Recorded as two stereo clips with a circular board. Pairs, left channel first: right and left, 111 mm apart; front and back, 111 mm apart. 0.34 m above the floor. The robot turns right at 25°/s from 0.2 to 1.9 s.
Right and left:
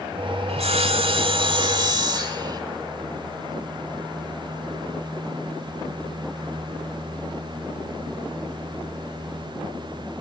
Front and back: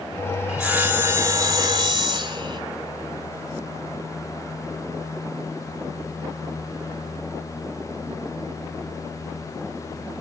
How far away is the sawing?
About 1.0 m.